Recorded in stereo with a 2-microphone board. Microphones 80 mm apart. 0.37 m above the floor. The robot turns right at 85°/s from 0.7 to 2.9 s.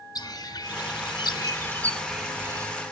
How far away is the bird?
About 2 m.